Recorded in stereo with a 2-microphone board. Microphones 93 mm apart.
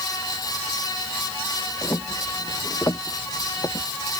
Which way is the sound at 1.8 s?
30° left (ahead or behind).